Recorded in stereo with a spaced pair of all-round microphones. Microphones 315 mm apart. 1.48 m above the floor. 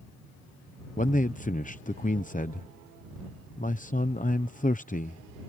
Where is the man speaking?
25° left (ahead or behind).